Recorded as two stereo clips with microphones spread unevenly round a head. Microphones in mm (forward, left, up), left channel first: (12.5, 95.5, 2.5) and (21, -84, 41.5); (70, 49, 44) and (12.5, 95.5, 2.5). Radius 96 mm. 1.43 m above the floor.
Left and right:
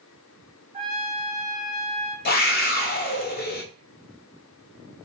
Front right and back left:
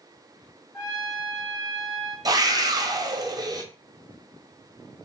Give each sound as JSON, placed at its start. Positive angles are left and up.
{"t": 0.7, "sound": "a trumpet", "azimuth_deg": -60, "distance_m": 1.8}
{"t": 2.2, "sound": "a scream", "azimuth_deg": 125, "distance_m": 0.7}